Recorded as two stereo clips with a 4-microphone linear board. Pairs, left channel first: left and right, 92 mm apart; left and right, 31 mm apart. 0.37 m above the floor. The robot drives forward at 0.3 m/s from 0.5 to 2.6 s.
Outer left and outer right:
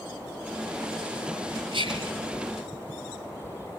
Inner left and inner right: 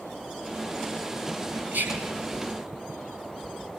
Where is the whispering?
80° right, 5.5 m.